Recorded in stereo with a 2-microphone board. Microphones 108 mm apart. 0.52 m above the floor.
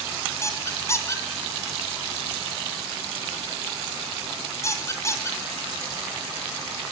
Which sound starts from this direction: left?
A squeak, at 0.4 s.